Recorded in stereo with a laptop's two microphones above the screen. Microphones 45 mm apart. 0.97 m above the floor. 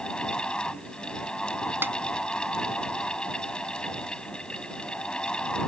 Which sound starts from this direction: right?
A snare drum, at 1.8 s.